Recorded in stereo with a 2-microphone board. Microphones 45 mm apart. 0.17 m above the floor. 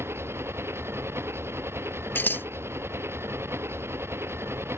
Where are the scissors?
50° left (ahead or behind).